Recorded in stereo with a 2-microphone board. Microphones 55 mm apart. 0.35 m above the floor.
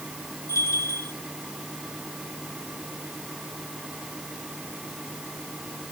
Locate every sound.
0.5 s a bell: 70° left (ahead or behind), 7.5 m